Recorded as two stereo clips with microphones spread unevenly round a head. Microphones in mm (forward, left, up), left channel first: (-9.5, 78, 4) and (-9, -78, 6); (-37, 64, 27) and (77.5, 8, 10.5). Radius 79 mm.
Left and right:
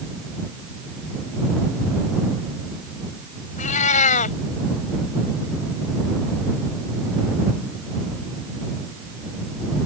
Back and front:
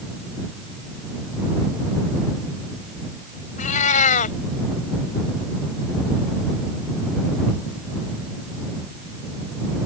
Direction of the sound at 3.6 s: 135° left.